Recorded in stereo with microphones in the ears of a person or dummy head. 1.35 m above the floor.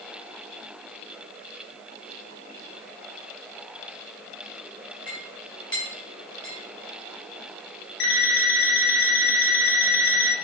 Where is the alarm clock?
65° left (ahead or behind), 2.5 m.